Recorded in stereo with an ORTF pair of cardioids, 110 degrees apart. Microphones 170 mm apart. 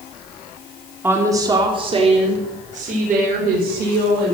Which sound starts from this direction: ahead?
A woman speaking, at 1.0 s.